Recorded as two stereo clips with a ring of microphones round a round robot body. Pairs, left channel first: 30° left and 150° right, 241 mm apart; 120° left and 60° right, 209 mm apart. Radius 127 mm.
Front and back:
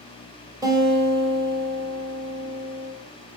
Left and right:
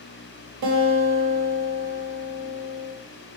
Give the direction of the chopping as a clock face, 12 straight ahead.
No chopping in this recording.